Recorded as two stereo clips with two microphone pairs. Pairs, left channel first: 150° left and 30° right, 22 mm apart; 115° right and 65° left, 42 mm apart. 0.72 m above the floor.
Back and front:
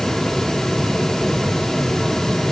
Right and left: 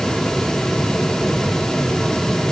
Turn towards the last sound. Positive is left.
No sound to turn to.